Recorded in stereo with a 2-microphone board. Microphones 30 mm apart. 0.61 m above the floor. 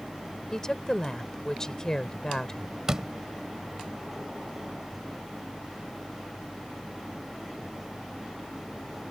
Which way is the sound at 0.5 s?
20° left (ahead or behind).